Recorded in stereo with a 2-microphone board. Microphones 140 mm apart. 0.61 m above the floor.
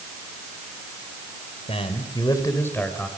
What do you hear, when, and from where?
1.7 s a man speaking: 45° left (ahead or behind), 2.5 m; by 3.1 s 5° left (ahead or behind), 3 m